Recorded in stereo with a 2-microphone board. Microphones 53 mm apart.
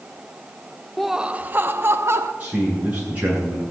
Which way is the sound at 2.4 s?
25° right (ahead or behind).